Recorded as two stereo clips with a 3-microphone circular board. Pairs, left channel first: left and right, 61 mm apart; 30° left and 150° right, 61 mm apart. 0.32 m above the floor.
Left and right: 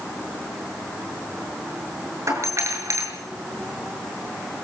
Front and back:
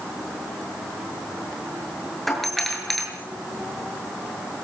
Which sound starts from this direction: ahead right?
A doorbell, at 2.3 s.